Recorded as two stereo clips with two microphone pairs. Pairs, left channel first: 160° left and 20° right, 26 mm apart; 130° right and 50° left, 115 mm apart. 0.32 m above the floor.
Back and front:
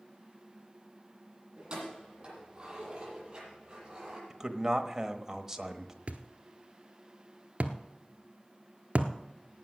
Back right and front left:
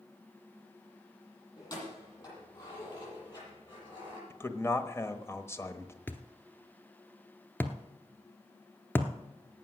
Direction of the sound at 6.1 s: 60° right.